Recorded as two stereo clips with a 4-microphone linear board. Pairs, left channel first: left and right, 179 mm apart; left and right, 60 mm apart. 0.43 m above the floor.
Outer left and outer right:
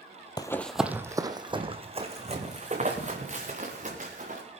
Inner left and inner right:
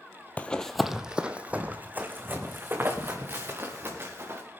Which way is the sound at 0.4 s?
25° left (ahead or behind).